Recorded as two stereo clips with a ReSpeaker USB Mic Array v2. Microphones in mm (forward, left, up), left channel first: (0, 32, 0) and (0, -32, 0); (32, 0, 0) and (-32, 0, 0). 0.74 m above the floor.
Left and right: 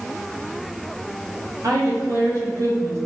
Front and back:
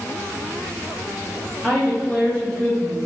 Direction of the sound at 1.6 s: 80° right.